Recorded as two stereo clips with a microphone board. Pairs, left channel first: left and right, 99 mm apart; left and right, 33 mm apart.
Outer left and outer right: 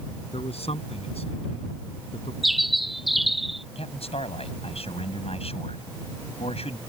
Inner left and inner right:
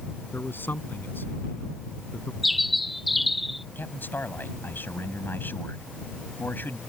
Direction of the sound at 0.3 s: 90° left.